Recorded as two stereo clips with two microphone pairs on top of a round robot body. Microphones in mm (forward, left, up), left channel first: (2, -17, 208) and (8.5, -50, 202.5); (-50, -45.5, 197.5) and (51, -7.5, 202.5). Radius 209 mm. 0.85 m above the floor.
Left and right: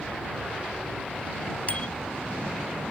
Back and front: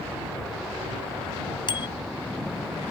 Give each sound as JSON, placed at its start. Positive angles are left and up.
{"t": 1.7, "sound": "a bicycle bell", "azimuth_deg": 150}